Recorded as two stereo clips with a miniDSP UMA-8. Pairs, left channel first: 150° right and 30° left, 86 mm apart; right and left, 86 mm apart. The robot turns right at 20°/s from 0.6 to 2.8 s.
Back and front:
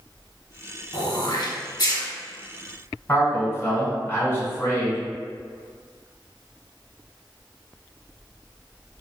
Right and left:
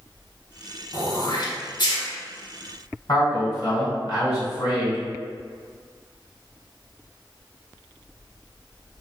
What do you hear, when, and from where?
0.9 s throat clearing: 130° right, 1.2 m; by 2.0 s 110° right, 1.2 m
3.1 s a man speaking: 95° right, 1.8 m